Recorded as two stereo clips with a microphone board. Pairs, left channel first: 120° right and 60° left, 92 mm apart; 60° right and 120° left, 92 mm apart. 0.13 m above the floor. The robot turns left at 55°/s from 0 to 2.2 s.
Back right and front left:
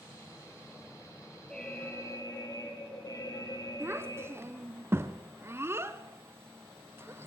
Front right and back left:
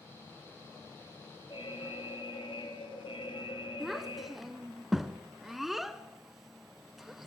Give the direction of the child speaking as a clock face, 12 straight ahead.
11 o'clock.